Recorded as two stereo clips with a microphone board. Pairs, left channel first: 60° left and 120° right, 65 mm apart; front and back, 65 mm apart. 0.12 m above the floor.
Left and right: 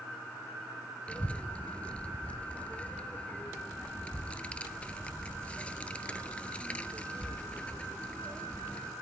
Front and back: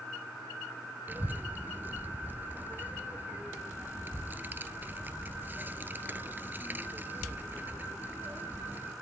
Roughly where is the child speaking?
Behind left.